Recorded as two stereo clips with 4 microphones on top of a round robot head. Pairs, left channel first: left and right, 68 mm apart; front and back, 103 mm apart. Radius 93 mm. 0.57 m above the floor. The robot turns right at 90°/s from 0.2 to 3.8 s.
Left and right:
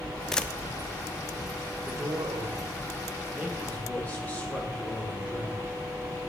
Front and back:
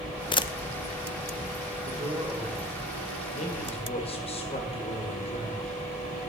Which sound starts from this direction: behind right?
A man speaking, at 1.9 s.